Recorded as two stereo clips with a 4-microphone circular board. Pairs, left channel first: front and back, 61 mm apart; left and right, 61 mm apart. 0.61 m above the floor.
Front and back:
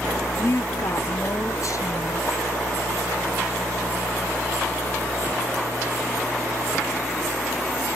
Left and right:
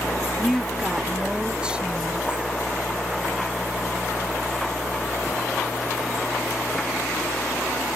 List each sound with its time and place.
0.4 s a woman speaking: straight ahead; by 2.5 s 20° right